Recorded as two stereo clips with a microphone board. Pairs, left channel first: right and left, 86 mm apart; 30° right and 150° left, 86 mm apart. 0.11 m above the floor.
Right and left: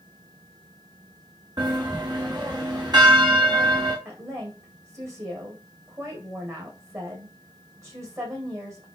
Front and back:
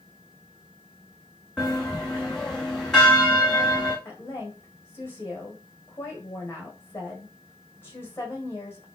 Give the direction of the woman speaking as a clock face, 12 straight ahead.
11 o'clock.